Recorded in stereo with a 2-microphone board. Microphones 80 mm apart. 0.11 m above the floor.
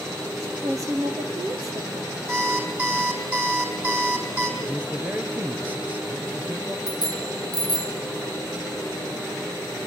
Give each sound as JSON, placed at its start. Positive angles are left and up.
{"t": 0.4, "sound": "a woman speaking", "side_deg": -45, "distance_m": 3.5}
{"t": 2.3, "sound": "an alarm clock", "side_deg": -20, "distance_m": 3.5}
{"t": 4.6, "sound": "a man speaking", "side_deg": -20, "distance_m": 2.5}
{"t": 6.9, "sound": "a bicycle bell", "side_deg": -60, "distance_m": 2.5}